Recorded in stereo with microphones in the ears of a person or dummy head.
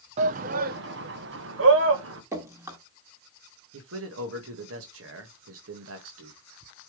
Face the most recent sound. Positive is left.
turn(degrees=-75)  # may be behind; listen again after turning